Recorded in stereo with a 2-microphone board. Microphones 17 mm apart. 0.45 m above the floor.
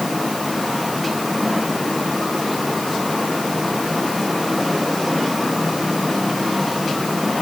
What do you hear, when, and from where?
Only background noise.